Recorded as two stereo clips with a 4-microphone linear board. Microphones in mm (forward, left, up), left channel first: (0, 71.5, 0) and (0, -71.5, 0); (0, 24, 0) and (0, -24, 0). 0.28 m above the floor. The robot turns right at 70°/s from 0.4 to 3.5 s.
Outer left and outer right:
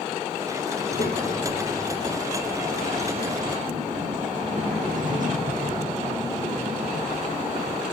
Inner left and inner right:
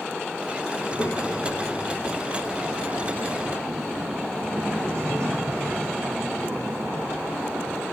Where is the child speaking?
55° left, 8.5 m; by 7.8 s 115° right, 8.5 m.